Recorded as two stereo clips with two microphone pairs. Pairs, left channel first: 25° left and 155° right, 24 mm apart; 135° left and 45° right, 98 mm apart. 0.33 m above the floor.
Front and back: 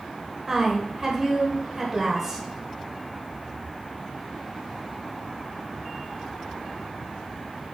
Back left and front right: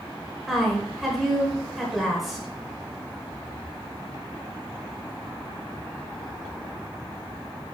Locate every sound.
0.5 s a woman speaking: 130° right, 1.0 m